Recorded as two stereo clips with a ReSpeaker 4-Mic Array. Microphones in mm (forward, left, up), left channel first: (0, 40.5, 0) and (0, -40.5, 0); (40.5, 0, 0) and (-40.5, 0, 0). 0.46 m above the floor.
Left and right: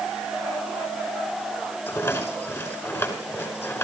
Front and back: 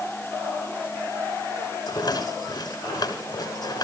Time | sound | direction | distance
1.9 | a rattle | 35° left | 6 m